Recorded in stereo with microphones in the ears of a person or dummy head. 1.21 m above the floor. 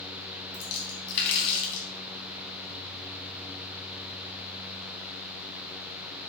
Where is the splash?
65° left (ahead or behind), 4 m.